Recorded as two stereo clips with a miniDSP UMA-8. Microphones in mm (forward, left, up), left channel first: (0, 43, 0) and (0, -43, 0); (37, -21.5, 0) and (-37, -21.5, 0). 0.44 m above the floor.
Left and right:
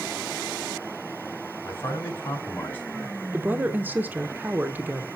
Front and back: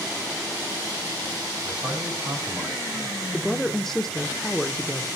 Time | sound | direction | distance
1.6 | a man speaking | 145° left | 3.5 m
3.3 | a woman speaking | 75° right | 0.8 m